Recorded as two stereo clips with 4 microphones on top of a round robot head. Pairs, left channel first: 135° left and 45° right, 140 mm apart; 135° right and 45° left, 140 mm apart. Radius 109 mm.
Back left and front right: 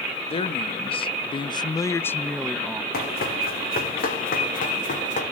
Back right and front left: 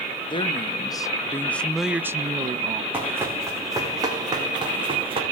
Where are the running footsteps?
125° left, 3.5 m; by 5.2 s 100° left, 3.5 m.